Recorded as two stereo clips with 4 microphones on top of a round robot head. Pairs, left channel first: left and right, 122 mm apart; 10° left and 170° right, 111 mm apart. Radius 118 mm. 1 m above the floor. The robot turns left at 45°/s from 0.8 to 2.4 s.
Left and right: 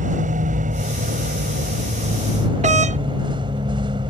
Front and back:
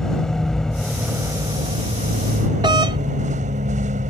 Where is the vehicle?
75° right; by 4.1 s 150° right.